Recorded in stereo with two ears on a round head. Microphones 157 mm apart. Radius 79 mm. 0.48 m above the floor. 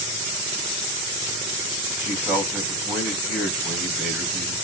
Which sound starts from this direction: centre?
A man speaking, at 2.0 s.